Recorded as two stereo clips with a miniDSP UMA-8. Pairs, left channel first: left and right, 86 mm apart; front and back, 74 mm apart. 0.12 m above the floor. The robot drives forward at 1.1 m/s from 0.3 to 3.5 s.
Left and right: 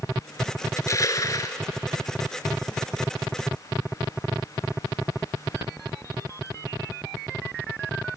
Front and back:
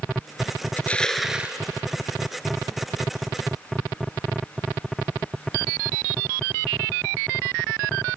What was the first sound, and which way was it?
Crushing, 55° left.